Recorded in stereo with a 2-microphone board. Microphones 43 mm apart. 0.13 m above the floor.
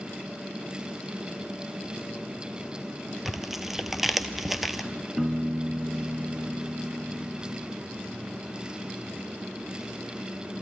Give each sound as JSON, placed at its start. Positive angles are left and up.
{"t": 3.2, "sound": "tearing paper", "side_deg": -5, "distance_m": 0.9}
{"t": 5.2, "sound": "a piano", "side_deg": 0, "distance_m": 0.5}